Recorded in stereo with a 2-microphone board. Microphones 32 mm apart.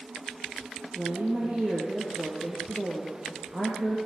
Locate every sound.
0.9 s a woman speaking: 30° right (ahead or behind), 5.5 m